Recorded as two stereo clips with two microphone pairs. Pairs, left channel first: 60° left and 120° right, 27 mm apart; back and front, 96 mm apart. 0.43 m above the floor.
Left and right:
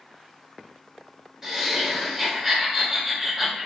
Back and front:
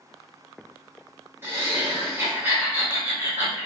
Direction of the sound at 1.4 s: 55° right.